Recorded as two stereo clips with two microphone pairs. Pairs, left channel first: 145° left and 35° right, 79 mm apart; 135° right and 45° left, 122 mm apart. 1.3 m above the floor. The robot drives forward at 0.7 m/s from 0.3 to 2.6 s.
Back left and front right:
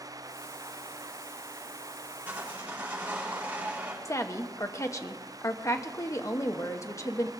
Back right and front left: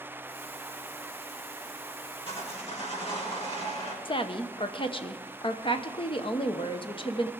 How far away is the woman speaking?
About 0.9 m.